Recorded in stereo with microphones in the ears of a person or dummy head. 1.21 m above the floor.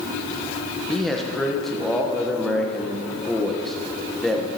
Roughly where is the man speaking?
Centre.